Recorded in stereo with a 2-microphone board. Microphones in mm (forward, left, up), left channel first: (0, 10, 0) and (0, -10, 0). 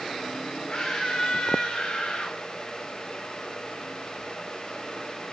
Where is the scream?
50° left (ahead or behind), 2 m; by 2.4 s 75° left (ahead or behind), 3 m.